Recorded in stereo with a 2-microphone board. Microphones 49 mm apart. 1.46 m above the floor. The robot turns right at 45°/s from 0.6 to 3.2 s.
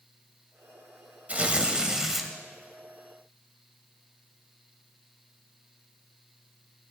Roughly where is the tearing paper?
Ahead right.